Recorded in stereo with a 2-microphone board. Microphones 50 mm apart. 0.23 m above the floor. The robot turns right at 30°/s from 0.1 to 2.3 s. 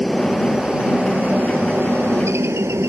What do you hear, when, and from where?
0.0 s a helicopter: centre (ahead or behind); by 2.9 s 65° right (ahead or behind)